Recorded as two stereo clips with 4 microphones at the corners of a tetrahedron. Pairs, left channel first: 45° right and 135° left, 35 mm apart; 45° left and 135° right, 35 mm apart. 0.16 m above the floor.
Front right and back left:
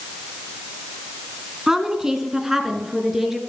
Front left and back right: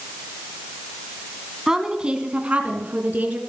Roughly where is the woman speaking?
Behind.